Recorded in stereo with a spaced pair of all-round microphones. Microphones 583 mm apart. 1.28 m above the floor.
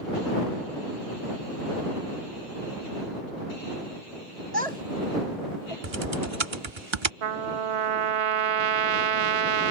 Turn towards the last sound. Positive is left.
turn(degrees=-65)  # may be behind; listen again after turning